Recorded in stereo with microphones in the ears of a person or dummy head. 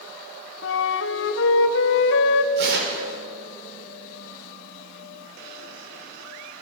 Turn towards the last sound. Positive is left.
turn(degrees=-60)  # may be behind; listen again after turning